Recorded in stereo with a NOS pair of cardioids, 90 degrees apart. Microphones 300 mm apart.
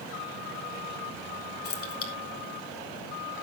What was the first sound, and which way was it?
Keys jangling, 50° left.